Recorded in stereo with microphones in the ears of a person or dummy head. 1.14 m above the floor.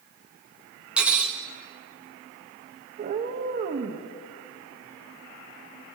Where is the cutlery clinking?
5° right (ahead or behind), 0.6 m.